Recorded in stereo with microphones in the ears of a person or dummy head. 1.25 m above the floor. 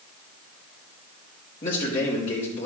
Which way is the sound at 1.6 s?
25° left (ahead or behind).